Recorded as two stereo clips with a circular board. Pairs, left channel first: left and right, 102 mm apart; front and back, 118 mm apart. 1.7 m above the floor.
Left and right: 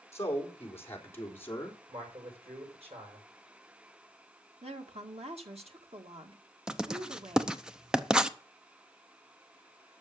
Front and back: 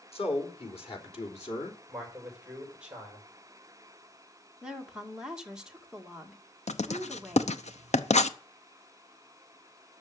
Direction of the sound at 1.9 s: 100° right.